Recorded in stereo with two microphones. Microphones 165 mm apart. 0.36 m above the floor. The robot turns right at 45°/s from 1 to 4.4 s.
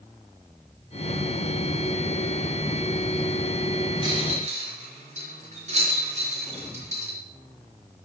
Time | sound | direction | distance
4.0 | a rattle | 30° right (ahead or behind) | 5 m